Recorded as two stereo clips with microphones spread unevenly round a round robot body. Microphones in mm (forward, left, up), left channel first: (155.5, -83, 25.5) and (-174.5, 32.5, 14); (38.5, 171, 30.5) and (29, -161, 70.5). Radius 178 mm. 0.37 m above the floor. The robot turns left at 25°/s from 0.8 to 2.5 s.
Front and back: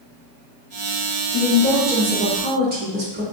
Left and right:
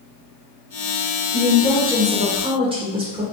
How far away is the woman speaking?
About 1.6 m.